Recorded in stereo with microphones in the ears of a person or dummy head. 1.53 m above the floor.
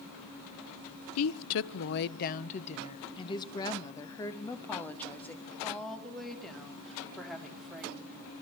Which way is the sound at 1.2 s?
80° left.